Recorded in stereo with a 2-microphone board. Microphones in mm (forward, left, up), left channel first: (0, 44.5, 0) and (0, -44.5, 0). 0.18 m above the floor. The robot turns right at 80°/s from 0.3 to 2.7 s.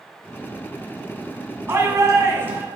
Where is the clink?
I don't hear a clink.